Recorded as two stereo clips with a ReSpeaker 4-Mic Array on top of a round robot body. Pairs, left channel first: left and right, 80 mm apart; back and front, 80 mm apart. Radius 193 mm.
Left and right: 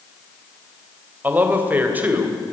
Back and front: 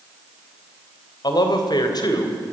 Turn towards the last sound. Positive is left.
turn(degrees=-155)